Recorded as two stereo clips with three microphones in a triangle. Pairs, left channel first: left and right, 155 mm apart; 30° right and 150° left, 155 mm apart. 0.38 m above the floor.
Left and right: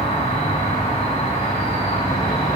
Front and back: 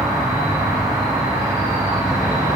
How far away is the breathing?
I don't hear breathing.